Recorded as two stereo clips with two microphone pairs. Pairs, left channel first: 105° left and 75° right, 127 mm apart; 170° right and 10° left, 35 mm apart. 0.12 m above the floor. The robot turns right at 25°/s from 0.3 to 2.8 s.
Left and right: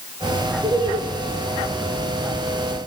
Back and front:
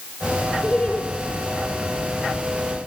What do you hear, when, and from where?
0.6 s laughter: 120° right, 2.5 m; by 1.0 s 110° right, 2.5 m